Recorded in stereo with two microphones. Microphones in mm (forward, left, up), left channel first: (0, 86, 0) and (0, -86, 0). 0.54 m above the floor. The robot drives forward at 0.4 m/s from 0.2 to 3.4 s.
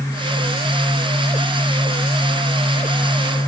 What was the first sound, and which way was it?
Only background noise.